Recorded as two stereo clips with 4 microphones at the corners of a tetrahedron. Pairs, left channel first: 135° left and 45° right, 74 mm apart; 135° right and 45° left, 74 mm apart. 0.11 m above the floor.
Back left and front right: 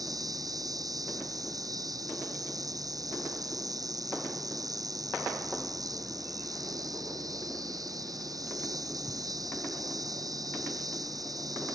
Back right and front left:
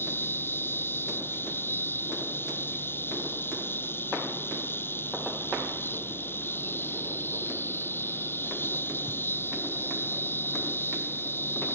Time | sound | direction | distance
0.0 | an insect | 75° right | ?